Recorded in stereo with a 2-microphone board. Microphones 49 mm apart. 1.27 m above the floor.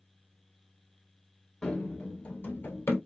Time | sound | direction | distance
1.6 | running footsteps | 15° left (ahead or behind) | 1.3 m